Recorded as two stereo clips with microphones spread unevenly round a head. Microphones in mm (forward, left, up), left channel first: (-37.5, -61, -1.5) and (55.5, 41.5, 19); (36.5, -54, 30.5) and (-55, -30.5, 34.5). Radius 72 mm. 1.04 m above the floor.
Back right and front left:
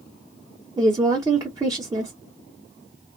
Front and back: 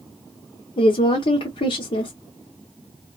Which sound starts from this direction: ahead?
A woman speaking, at 0.8 s.